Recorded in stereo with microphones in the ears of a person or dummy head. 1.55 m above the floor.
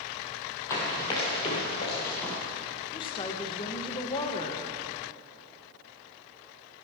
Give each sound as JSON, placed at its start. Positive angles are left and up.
{"t": 0.7, "sound": "running footsteps", "side_deg": 15, "distance_m": 1.9}
{"t": 2.9, "sound": "a woman speaking", "side_deg": 30, "distance_m": 1.1}